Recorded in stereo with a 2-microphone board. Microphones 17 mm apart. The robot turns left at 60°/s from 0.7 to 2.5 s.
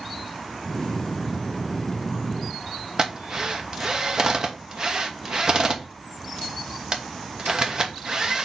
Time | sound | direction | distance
3.0 | a drill | 35° right (ahead or behind) | 1.2 m